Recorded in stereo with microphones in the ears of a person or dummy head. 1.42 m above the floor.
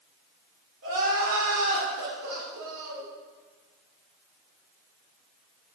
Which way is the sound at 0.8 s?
80° right.